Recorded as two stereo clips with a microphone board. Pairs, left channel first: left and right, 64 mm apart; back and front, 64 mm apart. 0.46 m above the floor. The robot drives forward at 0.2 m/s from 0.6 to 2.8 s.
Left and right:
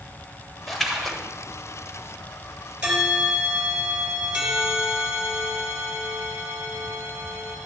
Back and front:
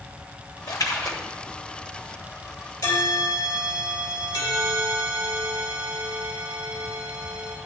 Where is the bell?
165° right, 3 m.